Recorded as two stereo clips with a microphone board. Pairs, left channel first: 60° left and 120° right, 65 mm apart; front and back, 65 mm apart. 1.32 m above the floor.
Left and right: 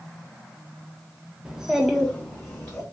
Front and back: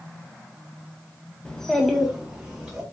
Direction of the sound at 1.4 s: 65° right.